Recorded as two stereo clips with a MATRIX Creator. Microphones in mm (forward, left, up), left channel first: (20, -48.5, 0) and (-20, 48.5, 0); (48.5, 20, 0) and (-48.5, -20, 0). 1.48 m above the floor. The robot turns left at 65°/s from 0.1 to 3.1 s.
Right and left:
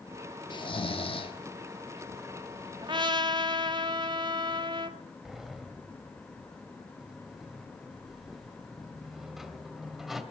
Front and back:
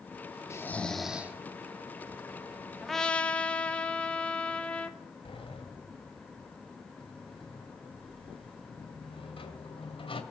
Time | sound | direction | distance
0.5 | snoring | 35° right | 1.5 m
2.8 | a trumpet | 115° left | 1.2 m
5.2 | a sliding door | 25° left | 2 m